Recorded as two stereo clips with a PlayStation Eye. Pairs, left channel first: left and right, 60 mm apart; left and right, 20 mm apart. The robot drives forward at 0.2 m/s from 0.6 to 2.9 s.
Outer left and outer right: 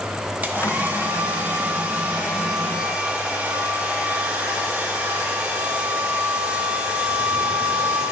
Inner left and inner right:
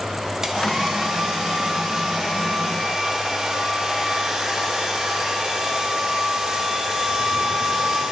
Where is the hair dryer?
25° right (ahead or behind), 0.8 m; by 8.1 s 15° right (ahead or behind), 1.2 m.